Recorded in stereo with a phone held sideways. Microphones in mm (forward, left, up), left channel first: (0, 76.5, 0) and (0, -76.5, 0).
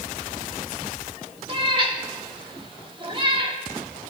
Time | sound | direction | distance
1.5 | a cat meowing | 35° right (ahead or behind) | 1.3 m